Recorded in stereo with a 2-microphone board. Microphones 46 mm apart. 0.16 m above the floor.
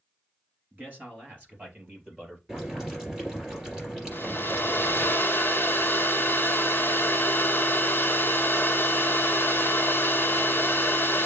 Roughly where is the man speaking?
Right.